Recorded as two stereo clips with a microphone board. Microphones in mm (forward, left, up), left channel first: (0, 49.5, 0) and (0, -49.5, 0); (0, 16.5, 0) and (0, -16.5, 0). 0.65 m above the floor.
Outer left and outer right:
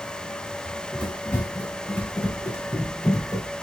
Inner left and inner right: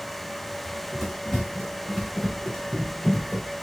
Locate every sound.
0.7 s running footsteps: 10° left (ahead or behind), 3 m; by 3.5 s 30° left (ahead or behind), 1.6 m